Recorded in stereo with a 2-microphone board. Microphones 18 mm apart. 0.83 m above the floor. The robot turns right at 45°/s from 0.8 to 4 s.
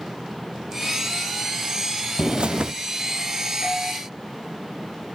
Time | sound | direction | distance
2.2 | a bird | 45° right (ahead or behind) | 0.7 m
3.6 | a doorbell | 15° left (ahead or behind) | 3.5 m